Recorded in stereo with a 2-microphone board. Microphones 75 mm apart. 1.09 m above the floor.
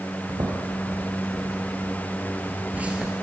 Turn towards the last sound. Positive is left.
turn(degrees=-10)  # may be behind; listen again after turning